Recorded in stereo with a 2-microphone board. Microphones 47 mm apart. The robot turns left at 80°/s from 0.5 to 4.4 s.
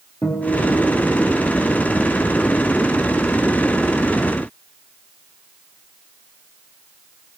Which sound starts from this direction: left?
A guitar, at 0.2 s.